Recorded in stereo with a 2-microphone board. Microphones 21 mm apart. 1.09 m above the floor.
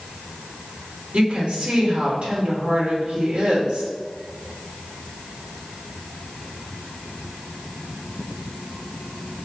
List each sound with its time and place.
1.1 s a woman speaking: 75° right (ahead or behind), 2.5 m